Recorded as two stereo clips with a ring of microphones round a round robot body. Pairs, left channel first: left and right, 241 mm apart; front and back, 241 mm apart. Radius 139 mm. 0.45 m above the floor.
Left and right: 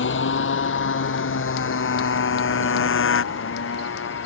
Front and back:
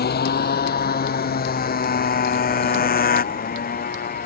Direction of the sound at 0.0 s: 50° left.